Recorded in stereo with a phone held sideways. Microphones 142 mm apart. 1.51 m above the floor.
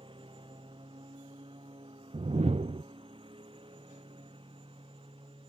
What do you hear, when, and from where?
0.0 s a lawn mower: 35° right (ahead or behind); by 5.5 s 40° right (ahead or behind)
2.1 s a whoosh: 45° right (ahead or behind)